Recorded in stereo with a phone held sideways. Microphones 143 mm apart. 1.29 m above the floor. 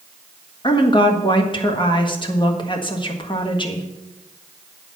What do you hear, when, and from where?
0.6 s a woman speaking: 35° left (ahead or behind), 1.4 m